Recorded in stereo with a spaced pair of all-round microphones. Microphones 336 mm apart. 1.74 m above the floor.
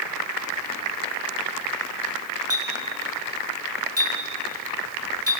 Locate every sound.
2.5 s a clink: 40° right (ahead or behind), 3.5 m